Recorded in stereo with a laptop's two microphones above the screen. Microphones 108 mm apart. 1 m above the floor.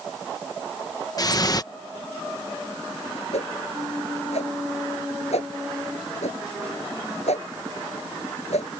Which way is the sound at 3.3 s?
85° left.